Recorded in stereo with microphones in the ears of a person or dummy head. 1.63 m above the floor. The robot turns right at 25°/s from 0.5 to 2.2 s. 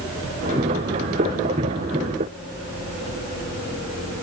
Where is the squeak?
I don't hear a squeak.